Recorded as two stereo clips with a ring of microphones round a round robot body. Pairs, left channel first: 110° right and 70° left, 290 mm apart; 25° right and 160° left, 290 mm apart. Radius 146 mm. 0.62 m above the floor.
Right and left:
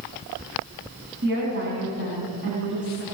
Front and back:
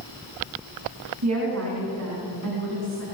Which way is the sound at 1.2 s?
125° left.